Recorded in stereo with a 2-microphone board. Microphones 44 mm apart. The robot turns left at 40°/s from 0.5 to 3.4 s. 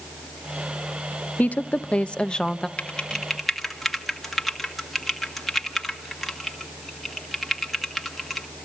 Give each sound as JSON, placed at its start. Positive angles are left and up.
{"t": 1.4, "sound": "a woman speaking", "azimuth_deg": 70, "distance_m": 0.8}
{"t": 2.8, "sound": "typing on a keyboard", "side_deg": 25, "distance_m": 1.7}